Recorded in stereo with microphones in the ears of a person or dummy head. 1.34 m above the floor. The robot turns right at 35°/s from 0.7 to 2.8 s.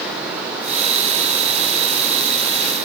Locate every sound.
Only background noise.